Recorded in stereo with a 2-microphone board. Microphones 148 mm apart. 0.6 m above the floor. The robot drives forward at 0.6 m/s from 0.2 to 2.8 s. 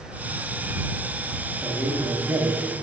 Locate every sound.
1.6 s a man speaking: 15° right (ahead or behind), 0.9 m; by 2.7 s 20° right (ahead or behind), 0.6 m